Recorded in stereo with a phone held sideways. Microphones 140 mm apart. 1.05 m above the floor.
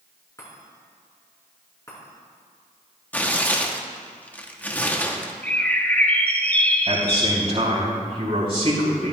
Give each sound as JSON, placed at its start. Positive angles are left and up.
{"t": 0.4, "sound": "a chime", "side_deg": 25, "distance_m": 4.5}
{"t": 3.1, "sound": "tearing paper", "side_deg": 10, "distance_m": 0.8}
{"t": 5.4, "sound": "a bird", "side_deg": 10, "distance_m": 0.8}
{"t": 6.9, "sound": "a man speaking", "side_deg": -50, "distance_m": 3.5}